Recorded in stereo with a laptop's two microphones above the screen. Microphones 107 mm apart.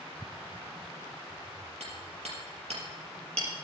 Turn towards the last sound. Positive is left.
turn(degrees=-80)